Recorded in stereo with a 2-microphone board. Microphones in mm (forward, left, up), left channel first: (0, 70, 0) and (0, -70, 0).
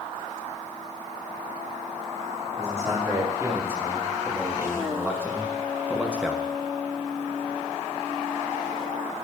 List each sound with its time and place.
2.6 s a man speaking: 20° right (ahead or behind), 4 m; by 6.5 s 5° right (ahead or behind), 1.1 m